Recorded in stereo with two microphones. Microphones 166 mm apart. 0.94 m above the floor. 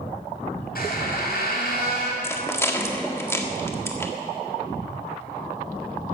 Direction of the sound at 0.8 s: 70° left (ahead or behind).